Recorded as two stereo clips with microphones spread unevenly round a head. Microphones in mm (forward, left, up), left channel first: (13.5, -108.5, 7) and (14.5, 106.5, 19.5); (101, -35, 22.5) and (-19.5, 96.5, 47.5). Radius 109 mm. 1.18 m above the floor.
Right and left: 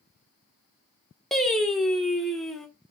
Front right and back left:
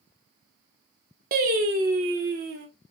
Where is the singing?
Straight behind, 1.3 m.